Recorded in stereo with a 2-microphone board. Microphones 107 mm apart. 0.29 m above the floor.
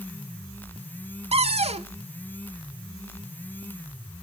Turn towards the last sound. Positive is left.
turn(degrees=-70)  # may be behind; listen again after turning